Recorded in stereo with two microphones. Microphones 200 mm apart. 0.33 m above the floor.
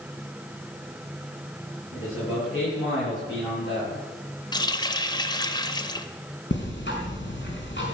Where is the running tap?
20° left (ahead or behind), 0.8 m.